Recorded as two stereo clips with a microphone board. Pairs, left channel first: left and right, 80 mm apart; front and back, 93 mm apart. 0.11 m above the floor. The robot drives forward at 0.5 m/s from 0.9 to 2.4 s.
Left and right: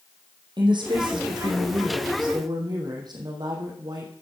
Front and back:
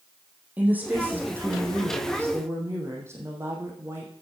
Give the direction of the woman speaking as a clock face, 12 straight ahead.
4 o'clock.